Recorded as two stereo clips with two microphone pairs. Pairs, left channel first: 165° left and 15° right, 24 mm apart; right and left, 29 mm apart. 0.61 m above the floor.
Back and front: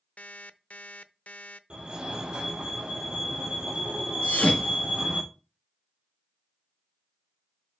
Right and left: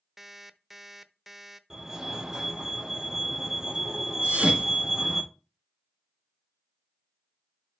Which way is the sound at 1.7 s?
20° left.